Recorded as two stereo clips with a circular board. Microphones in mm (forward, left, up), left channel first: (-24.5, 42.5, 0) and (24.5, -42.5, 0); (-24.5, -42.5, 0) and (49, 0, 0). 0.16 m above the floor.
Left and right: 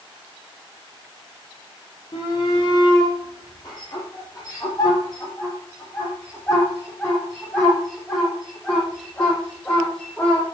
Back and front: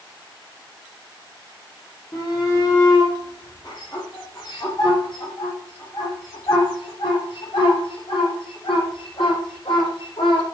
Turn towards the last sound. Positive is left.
turn(degrees=-160)